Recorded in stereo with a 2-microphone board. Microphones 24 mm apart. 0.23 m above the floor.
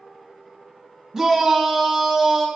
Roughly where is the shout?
Centre.